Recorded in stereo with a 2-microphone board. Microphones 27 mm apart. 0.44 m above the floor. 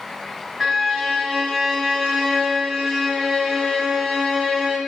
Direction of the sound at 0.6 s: Centre (ahead or behind).